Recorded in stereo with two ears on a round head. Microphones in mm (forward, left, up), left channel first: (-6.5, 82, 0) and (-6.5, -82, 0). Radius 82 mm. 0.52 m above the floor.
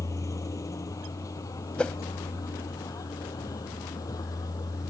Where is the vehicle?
20° left (ahead or behind).